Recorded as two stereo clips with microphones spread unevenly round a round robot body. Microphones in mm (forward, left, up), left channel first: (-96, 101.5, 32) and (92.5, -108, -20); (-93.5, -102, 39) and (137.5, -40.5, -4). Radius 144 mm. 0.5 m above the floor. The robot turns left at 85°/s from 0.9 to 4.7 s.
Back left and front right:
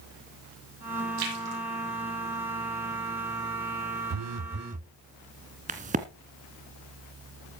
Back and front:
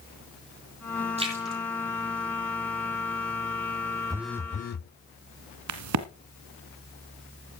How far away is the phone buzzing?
About 0.5 m.